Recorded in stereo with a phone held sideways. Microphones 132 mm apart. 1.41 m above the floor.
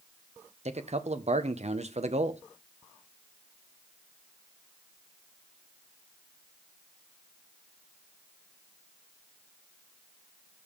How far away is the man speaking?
About 0.8 m.